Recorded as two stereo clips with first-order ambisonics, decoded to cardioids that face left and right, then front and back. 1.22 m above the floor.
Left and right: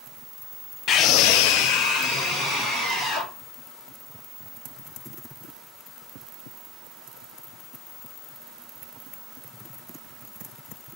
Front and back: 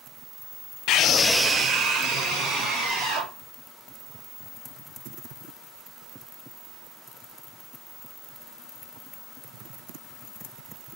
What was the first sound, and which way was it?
A scream, 35° left.